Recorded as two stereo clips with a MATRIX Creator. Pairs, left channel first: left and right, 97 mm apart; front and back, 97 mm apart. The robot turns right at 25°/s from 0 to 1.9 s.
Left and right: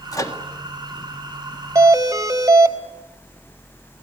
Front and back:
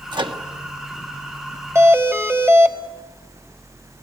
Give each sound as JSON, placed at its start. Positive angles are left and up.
{"t": 0.1, "sound": "a microwave", "azimuth_deg": 140, "distance_m": 1.7}
{"t": 1.8, "sound": "a doorbell", "azimuth_deg": -130, "distance_m": 1.4}